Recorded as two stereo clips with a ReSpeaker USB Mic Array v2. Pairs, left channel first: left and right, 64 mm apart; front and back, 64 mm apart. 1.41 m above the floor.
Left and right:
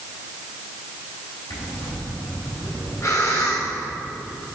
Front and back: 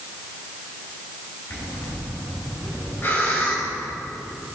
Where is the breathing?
50° left, 4 m.